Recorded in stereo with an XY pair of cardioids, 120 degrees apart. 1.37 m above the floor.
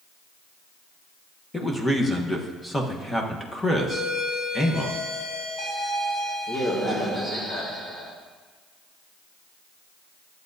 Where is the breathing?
I don't hear breathing.